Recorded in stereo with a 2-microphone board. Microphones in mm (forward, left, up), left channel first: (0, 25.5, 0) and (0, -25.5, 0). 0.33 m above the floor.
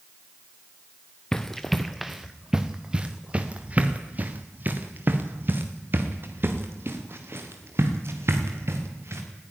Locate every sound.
1.3 s running footsteps: 10° left (ahead or behind), 1.5 m; by 9.2 s 55° right (ahead or behind), 4.5 m